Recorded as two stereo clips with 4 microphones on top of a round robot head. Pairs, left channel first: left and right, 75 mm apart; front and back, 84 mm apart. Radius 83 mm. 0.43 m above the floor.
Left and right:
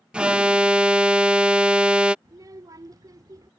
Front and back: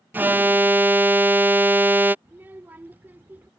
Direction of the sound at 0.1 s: 150° right.